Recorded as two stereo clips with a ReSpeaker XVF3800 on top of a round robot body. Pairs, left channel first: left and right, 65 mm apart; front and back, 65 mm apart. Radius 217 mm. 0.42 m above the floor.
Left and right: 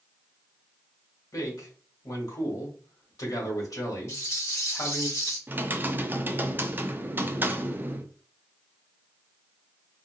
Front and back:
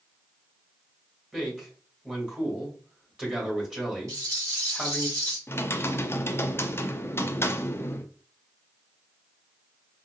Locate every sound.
1.3 s a man speaking: 105° left, 2 m
4.1 s a rattle: 140° left, 1.9 m
5.5 s typing on a keyboard: 40° right, 0.7 m